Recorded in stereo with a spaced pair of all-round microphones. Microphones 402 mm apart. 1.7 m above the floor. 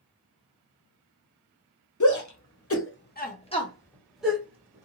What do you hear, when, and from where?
2.0 s a shout: 45° left (ahead or behind), 0.9 m; by 4.8 s 10° right (ahead or behind), 1.3 m